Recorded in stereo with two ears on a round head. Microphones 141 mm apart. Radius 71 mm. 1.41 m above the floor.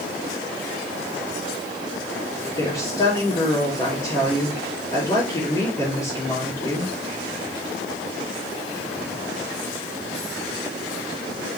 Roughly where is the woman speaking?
Left.